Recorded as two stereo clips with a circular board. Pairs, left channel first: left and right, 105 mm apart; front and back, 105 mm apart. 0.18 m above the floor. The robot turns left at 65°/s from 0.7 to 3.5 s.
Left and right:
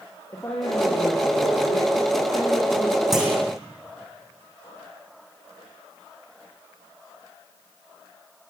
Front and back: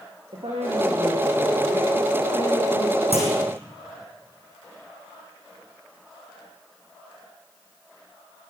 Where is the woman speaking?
150° left, 8 m; by 3.0 s straight ahead, 8 m.